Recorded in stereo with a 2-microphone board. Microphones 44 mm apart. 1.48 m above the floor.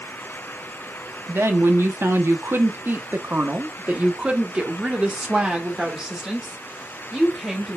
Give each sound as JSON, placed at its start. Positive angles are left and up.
{"t": 1.3, "sound": "a woman speaking", "side_deg": -80, "distance_m": 1.4}